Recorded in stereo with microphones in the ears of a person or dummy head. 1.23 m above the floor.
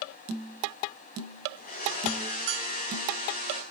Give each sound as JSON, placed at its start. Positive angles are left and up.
{"t": 1.6, "sound": "a blender", "side_deg": 45, "distance_m": 4.0}